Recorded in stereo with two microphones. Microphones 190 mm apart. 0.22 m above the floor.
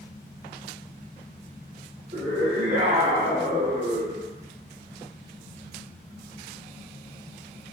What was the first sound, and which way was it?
A scream, 40° right (ahead or behind).